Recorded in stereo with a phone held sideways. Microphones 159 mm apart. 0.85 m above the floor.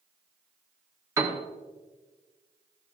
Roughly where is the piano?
Centre.